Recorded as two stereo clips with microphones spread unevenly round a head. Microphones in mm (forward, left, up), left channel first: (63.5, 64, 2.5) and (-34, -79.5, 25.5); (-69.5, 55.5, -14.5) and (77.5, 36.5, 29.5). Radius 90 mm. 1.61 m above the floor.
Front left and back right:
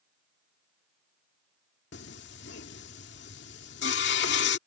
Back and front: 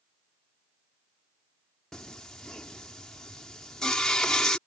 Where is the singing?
75° left.